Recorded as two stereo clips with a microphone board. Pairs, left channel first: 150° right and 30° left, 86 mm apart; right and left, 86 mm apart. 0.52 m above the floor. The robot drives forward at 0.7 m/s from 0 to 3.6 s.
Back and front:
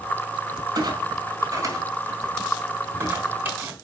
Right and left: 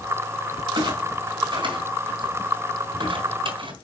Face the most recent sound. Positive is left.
turn(degrees=100)